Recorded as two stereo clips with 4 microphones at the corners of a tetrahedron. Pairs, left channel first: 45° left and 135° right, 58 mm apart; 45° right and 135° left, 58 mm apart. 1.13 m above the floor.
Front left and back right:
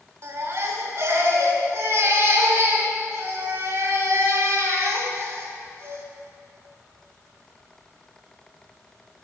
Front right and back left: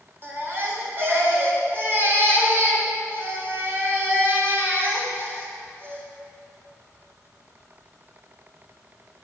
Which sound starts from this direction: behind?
A baby crying, at 0.2 s.